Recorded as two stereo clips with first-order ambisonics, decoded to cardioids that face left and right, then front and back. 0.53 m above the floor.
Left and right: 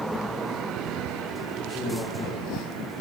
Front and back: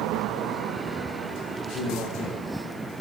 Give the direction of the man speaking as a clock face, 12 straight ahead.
11 o'clock.